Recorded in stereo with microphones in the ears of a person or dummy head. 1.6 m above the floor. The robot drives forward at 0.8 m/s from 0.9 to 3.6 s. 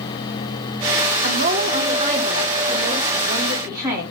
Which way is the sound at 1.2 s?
55° right (ahead or behind).